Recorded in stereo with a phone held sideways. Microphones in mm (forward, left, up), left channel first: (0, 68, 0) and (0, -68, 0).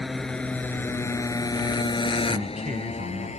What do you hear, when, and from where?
0.0 s a motorcycle: centre (ahead or behind); by 3.4 s 55° left (ahead or behind)
2.3 s a man speaking: 70° right (ahead or behind)